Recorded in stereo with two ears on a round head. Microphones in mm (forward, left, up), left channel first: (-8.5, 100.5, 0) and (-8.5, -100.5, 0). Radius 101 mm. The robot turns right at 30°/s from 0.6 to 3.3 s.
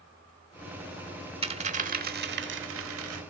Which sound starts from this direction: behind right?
A dropped coin, at 1.4 s.